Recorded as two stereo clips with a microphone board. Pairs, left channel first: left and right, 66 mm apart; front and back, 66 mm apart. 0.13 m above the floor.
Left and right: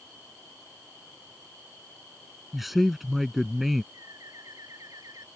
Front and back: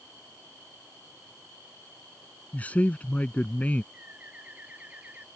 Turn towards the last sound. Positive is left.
turn(degrees=-115)